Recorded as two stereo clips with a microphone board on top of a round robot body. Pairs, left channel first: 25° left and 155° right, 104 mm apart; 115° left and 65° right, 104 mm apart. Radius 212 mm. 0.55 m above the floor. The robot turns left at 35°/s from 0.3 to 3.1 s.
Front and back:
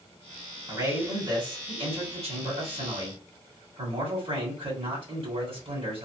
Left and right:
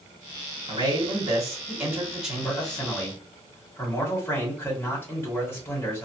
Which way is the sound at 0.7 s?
95° right.